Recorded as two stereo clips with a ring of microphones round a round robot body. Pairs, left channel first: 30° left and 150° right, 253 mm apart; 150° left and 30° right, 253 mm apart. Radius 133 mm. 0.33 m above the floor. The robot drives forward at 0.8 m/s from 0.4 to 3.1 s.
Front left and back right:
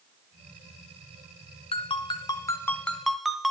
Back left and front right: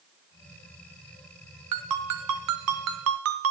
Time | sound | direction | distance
1.7 | a ringtone | 40° right | 2.5 m